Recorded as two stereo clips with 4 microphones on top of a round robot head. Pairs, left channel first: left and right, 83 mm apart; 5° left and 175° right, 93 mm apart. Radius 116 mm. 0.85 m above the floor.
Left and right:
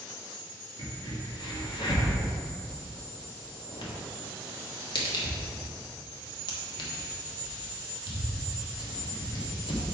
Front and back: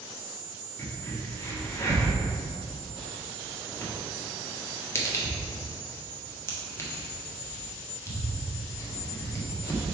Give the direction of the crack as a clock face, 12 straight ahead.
10 o'clock.